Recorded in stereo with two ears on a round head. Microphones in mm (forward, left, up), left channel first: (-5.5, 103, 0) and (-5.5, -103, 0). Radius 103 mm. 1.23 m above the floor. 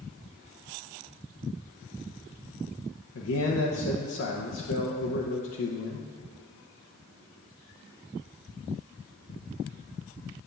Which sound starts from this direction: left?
A man speaking, at 3.1 s.